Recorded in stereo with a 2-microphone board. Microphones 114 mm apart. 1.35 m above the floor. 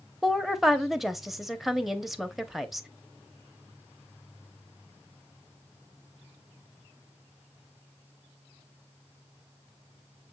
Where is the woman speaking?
Centre (ahead or behind), 0.7 m.